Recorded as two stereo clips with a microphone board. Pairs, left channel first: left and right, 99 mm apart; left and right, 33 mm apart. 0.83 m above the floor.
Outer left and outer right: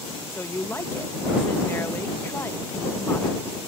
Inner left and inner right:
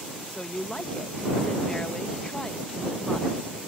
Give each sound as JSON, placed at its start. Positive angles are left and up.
{"t": 0.3, "sound": "a woman speaking", "side_deg": 25}